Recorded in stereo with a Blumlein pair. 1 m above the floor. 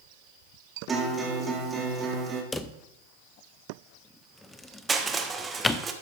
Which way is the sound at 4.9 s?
15° right.